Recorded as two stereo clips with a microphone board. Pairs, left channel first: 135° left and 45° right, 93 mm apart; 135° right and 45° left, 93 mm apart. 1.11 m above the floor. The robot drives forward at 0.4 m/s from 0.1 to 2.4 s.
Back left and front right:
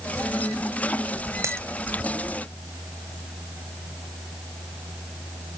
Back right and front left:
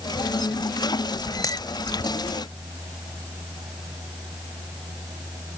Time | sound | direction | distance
1.4 | a dropped coin | 100° right | ?